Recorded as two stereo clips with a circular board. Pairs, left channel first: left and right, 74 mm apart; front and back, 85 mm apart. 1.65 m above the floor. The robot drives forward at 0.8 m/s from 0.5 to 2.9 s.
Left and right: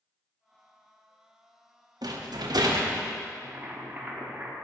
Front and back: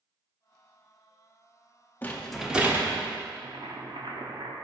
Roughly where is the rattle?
Right.